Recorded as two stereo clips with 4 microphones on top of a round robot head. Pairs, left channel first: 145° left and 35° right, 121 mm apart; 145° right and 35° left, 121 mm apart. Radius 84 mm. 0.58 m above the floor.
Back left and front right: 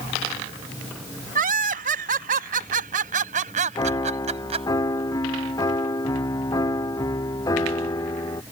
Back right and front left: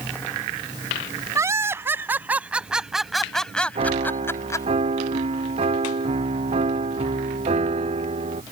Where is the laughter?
30° right; by 4.7 s 80° right.